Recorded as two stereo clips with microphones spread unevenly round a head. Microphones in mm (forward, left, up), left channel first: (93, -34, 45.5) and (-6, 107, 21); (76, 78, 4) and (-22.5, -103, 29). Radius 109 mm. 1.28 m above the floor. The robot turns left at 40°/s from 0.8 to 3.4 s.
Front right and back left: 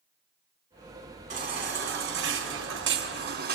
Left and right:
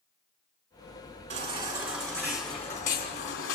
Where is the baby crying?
Straight behind, 3 m; by 3.6 s 100° left, 3 m.